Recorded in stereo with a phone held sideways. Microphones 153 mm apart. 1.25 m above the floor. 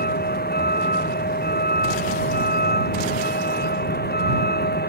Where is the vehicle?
75° left (ahead or behind); by 4.9 s 80° left.